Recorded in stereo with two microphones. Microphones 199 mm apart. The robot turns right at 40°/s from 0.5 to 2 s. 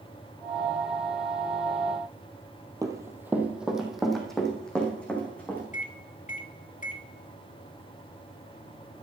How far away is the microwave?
About 1.4 m.